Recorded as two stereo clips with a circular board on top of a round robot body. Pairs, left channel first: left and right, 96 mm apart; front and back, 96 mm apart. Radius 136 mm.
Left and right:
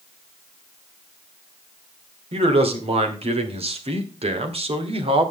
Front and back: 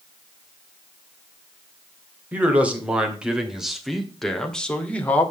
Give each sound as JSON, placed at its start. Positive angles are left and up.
{"t": 2.3, "sound": "a man speaking", "azimuth_deg": -105, "distance_m": 3.0}